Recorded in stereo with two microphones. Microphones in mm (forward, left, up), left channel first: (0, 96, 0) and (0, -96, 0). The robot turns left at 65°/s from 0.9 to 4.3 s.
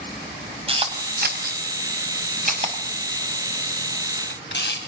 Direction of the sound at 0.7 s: 30° right (ahead or behind).